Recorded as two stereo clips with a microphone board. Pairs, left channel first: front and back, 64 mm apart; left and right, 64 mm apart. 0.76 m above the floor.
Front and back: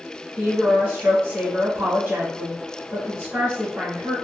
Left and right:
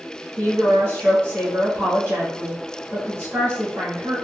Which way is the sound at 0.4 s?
125° right.